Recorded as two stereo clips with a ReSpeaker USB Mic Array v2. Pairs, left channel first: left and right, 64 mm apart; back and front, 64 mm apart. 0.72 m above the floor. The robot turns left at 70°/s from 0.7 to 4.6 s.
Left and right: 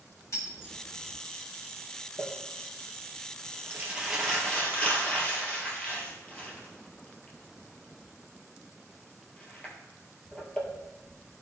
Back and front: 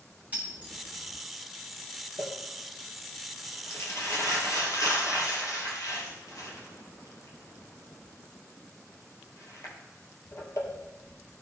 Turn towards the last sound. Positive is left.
turn(degrees=155)